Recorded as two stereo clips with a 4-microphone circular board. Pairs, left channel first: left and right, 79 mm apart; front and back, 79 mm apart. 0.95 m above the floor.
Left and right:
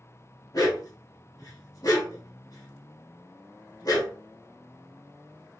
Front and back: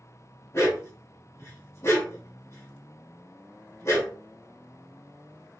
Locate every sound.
0.5 s a dog barking: 50° left, 1.4 m